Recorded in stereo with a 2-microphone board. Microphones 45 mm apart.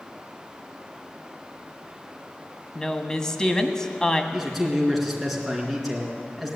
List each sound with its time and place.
2.8 s a woman speaking: 15° left (ahead or behind), 1.2 m
4.3 s a man speaking: centre (ahead or behind), 3.5 m